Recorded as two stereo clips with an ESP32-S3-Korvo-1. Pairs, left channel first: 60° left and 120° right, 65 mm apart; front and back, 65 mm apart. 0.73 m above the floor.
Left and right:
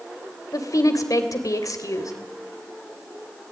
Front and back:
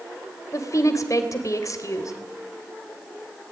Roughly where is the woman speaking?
Ahead left.